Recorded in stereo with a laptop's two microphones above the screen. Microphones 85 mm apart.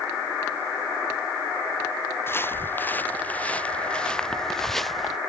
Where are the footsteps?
30° left (ahead or behind); by 5.2 s centre (ahead or behind).